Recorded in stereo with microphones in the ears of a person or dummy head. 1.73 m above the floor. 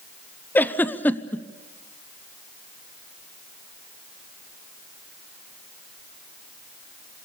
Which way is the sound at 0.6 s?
15° left (ahead or behind).